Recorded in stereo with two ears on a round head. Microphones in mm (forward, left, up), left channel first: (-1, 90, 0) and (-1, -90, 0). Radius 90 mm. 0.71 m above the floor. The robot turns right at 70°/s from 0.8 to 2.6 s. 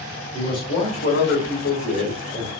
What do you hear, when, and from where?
0.3 s a man speaking: 25° left, 2.5 m; by 2.5 s 145° left, 2.5 m